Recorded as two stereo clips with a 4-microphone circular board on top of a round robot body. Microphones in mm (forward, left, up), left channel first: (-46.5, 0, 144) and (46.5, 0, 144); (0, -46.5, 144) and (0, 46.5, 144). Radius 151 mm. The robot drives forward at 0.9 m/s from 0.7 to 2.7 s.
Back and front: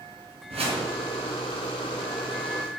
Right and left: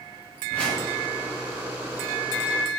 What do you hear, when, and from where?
0.5 s a whoosh: 10° right, 4.5 m; by 0.9 s 15° right, 4 m